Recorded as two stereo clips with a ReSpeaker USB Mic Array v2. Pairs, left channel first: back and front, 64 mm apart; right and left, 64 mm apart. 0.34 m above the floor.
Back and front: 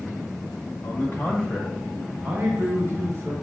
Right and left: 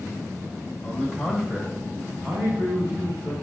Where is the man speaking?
170° right, 1.0 m; by 3.3 s 45° left, 1.3 m.